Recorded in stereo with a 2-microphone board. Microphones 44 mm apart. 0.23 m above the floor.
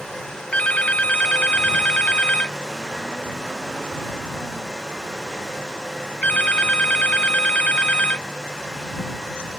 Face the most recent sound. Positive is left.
turn(degrees=30)  # may be behind; listen again after turning